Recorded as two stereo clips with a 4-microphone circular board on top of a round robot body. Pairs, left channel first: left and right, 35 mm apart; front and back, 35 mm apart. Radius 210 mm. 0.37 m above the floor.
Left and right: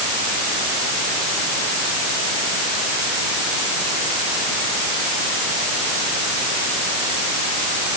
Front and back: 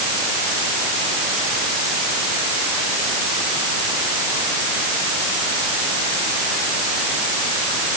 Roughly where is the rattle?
I don't hear a rattle.